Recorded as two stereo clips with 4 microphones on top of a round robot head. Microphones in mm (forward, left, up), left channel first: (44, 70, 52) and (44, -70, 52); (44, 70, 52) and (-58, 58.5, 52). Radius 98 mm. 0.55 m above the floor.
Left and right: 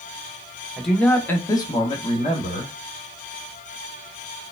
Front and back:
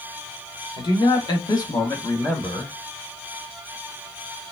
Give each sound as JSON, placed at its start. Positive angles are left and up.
{"t": 0.8, "sound": "a man speaking", "azimuth_deg": 0, "distance_m": 1.3}